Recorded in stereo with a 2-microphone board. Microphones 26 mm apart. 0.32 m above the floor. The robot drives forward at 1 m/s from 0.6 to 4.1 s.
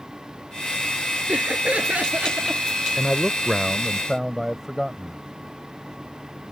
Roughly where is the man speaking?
Centre.